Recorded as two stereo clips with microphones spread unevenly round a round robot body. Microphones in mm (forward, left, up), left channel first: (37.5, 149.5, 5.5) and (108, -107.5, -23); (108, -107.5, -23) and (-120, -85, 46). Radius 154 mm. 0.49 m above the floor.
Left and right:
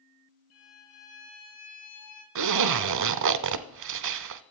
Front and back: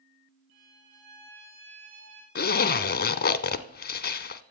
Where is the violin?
135° left, 3.5 m.